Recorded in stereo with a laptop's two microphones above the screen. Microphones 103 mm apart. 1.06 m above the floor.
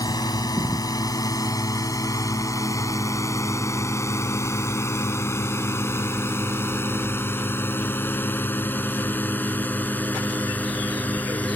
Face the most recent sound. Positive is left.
turn(degrees=15)  # may be behind; listen again after turning